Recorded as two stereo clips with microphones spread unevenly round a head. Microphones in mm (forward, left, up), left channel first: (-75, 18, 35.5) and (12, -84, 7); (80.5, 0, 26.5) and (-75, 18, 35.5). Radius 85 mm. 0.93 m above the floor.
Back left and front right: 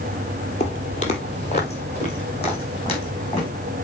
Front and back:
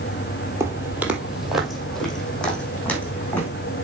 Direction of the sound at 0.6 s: 105° left.